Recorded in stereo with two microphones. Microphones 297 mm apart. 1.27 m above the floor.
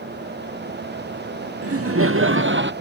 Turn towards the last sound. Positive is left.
turn(degrees=-40)  # may be behind; listen again after turning